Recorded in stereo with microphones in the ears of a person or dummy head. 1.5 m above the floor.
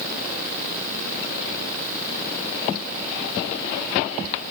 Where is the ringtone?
I don't hear a ringtone.